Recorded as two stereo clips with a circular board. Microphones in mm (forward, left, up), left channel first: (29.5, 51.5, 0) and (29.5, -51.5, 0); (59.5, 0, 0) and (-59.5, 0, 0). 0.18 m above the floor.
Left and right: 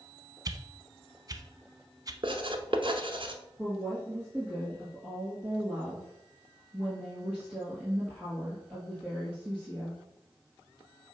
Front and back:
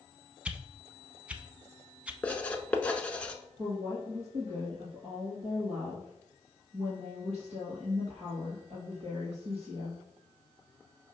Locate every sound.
0.5 s a whoosh: 105° right, 0.6 m
2.2 s writing: 75° right, 0.8 m
3.6 s a woman speaking: 165° right, 2.5 m